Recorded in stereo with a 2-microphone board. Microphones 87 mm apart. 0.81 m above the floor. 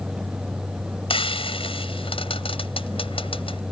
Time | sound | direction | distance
1.1 | frying | 80° left | ?